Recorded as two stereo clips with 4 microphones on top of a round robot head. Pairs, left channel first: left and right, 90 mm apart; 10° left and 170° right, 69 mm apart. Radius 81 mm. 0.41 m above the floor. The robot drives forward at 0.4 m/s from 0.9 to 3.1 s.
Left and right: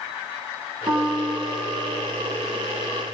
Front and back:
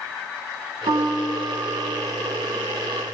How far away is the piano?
About 2 m.